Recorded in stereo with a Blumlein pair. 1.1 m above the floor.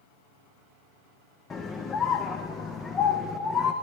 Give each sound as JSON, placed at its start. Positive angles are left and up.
{"t": 1.5, "sound": "a scream", "azimuth_deg": 20, "distance_m": 0.6}